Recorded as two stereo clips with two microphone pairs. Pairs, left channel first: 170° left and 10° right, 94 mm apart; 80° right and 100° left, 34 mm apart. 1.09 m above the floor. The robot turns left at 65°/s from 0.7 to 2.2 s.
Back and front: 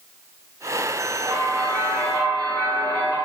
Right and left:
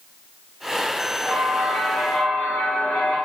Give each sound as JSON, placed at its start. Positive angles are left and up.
{"t": 1.2, "sound": "a bell", "azimuth_deg": -50, "distance_m": 1.6}